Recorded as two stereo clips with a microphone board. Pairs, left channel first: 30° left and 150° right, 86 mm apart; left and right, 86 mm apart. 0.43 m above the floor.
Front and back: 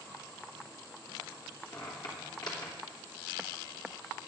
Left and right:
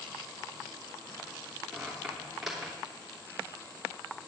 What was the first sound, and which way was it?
A squeak, 5° right.